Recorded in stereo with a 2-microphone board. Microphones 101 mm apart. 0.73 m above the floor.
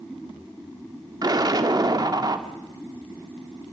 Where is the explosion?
40° right (ahead or behind), 1.1 m.